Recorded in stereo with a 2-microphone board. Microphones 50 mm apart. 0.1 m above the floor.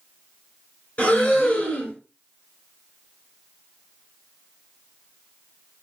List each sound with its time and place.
1.0 s breathing: 25° left (ahead or behind), 1.9 m